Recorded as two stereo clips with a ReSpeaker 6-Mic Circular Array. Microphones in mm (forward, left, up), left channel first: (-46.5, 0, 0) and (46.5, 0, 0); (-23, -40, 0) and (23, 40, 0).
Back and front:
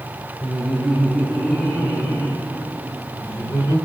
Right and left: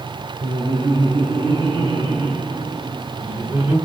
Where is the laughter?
90° left, 7.5 m; by 3.8 s 120° left, 7.5 m.